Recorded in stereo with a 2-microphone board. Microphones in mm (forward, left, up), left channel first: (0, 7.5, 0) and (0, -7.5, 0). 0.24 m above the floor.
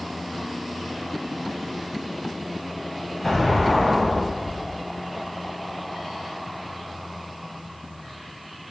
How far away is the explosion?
About 2.5 m.